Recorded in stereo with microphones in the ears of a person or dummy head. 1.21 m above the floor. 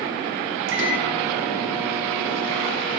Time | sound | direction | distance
0.7 | a microwave | 70° right (ahead or behind) | 0.9 m